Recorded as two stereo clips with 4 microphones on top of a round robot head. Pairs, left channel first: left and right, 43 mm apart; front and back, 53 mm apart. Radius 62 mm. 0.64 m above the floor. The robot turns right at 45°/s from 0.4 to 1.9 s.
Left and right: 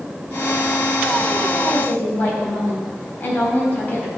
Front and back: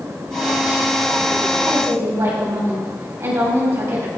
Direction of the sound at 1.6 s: 130° left.